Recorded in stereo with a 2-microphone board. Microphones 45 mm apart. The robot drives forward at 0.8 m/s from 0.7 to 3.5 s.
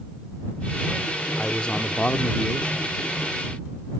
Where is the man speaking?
20° left (ahead or behind); by 2.9 s 25° left (ahead or behind).